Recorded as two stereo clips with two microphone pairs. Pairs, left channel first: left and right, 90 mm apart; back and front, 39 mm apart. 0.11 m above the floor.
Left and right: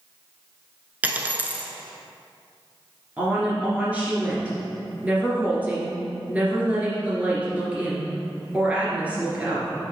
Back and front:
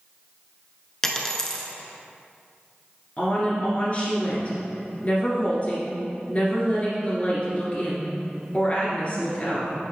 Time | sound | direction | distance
1.0 | a dropped coin | 120° right | 0.7 m
3.2 | a woman speaking | 155° right | 2.0 m